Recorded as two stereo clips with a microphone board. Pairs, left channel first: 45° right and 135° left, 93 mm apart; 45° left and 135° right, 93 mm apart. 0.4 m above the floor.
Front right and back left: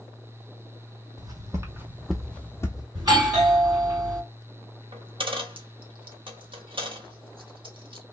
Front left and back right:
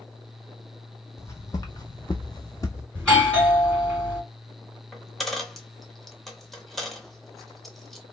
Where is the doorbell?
125° left, 2.5 m.